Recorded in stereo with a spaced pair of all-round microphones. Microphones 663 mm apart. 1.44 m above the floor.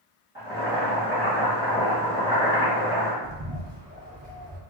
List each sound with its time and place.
0.3 s boiling: 15° left (ahead or behind), 1.7 m
3.2 s a bird: 30° right (ahead or behind), 1.0 m